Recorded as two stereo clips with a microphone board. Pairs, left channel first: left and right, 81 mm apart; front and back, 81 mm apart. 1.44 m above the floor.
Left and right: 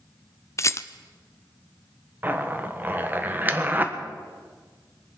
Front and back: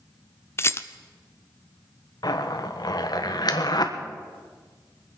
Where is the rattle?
50° left, 0.6 m.